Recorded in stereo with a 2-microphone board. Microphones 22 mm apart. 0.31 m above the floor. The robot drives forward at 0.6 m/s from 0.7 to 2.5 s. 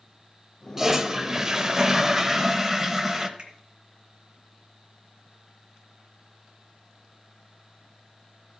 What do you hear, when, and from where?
0.8 s a toilet flushing: 15° right (ahead or behind), 0.8 m
3.4 s a finger snap: 40° right (ahead or behind), 2.5 m